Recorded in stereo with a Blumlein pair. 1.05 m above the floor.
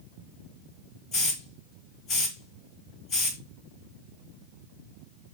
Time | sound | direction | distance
1.1 | a hiss | 35° left | 2.5 m